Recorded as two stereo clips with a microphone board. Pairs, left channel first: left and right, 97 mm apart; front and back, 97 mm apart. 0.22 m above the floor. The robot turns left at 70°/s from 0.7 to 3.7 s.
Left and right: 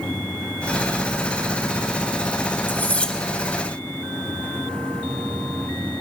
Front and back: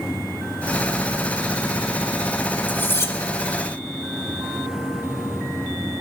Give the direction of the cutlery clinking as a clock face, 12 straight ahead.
10 o'clock.